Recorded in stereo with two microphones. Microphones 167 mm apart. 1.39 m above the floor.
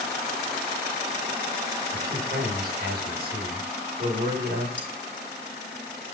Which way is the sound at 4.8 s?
10° left (ahead or behind).